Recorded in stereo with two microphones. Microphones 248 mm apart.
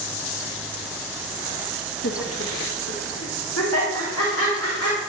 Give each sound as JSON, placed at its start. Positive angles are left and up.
{"t": 2.0, "sound": "laughter", "side_deg": 50, "distance_m": 0.6}